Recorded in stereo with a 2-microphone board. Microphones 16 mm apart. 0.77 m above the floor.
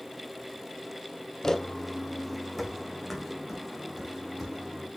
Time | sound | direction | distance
1.4 | footsteps | 30° left (ahead or behind) | 1.4 m